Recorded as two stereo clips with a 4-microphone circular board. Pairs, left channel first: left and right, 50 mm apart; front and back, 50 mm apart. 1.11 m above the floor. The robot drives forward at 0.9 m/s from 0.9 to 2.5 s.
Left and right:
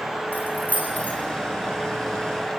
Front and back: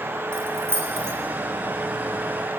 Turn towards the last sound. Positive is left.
turn(degrees=155)